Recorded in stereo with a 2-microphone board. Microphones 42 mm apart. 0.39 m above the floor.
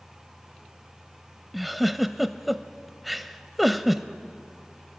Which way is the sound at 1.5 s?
Centre (ahead or behind).